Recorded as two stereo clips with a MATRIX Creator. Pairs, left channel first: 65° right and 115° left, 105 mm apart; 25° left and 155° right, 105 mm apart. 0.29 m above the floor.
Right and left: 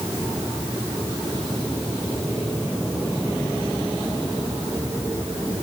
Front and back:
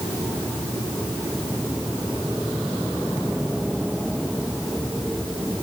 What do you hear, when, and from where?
Only background noise.